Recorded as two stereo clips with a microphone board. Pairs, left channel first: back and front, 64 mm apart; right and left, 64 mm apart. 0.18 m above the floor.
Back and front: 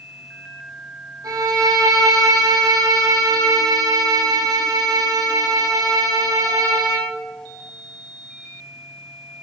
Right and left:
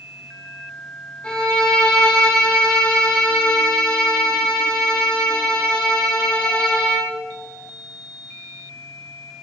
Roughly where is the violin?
Ahead.